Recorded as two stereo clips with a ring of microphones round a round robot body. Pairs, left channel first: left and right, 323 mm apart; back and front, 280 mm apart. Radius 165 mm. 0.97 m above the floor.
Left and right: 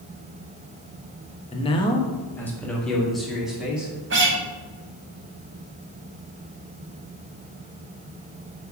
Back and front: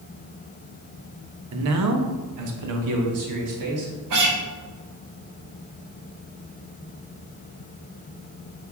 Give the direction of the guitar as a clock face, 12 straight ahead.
1 o'clock.